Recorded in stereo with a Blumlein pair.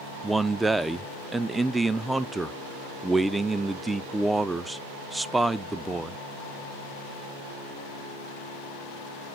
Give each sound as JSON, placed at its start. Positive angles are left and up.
{"t": 0.2, "sound": "a man speaking", "azimuth_deg": -5, "distance_m": 0.5}